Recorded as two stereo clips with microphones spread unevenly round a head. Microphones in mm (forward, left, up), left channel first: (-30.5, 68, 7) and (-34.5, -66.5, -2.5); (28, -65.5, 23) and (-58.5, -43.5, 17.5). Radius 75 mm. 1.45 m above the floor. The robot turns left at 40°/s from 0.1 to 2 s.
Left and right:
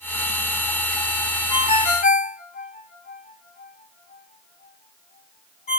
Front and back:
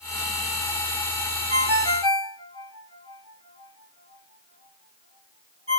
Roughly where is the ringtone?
Behind left.